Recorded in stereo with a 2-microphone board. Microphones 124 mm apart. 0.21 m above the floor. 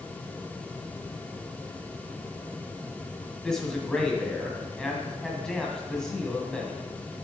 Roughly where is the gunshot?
No gunshot in this recording.